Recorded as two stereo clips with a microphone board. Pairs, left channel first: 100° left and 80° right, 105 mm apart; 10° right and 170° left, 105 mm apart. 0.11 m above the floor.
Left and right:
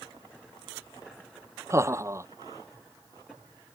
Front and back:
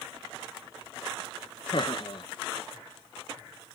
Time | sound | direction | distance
1.7 | laughter | 25° right | ?